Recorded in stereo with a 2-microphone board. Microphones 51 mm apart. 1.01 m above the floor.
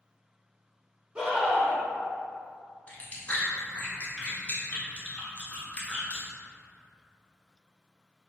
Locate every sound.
1.1 s a scream: 20° right (ahead or behind), 0.9 m
2.9 s chewing: 25° left (ahead or behind), 0.7 m